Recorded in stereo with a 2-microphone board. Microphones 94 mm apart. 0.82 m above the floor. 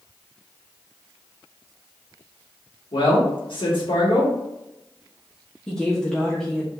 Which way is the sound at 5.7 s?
10° left (ahead or behind).